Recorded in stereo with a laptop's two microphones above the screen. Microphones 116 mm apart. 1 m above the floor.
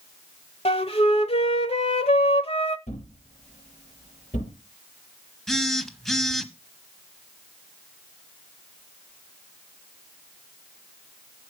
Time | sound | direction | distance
0.7 | a flute | 55° left (ahead or behind) | 1.2 m
2.9 | a thud | 75° left (ahead or behind) | 7.5 m
5.5 | a phone buzzing | centre (ahead or behind) | 1.2 m